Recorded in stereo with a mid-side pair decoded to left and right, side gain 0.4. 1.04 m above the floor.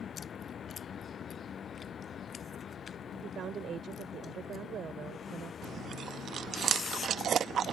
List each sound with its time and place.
0.0 s a vehicle: 60° left
3.2 s a woman speaking: 65° right
5.6 s chewing: 60° right